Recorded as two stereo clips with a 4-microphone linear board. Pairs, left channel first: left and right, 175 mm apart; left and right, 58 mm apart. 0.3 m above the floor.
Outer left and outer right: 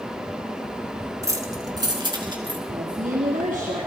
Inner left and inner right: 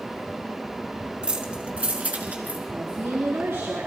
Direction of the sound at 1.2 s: 20° right (ahead or behind).